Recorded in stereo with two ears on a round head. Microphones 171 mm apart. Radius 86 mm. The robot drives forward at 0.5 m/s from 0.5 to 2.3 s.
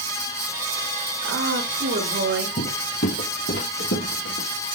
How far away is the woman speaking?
About 4.5 m.